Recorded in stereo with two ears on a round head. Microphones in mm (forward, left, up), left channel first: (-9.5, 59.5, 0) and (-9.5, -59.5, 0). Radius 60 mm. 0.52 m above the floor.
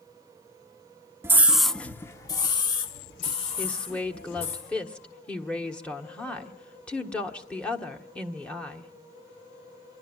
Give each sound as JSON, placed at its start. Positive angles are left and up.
{"t": 1.2, "sound": "a scream", "side_deg": -20, "distance_m": 0.8}
{"t": 3.6, "sound": "a woman speaking", "side_deg": 10, "distance_m": 1.4}